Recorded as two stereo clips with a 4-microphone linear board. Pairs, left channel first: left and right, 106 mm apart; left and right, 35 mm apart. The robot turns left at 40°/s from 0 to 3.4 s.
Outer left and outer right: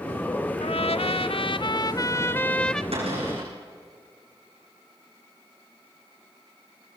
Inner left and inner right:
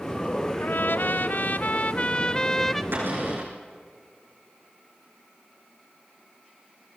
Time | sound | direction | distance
0.6 | a trumpet | 95° left | 0.6 m
2.9 | a cupboard door | 75° right (ahead or behind) | 7.5 m